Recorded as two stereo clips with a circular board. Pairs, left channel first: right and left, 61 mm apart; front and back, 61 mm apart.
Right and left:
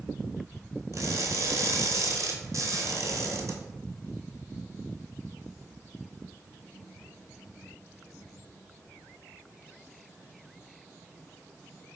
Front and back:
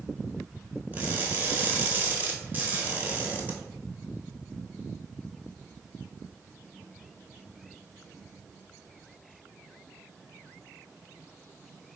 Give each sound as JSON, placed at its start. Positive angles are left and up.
{"t": 0.9, "sound": "crushing", "azimuth_deg": 120, "distance_m": 0.8}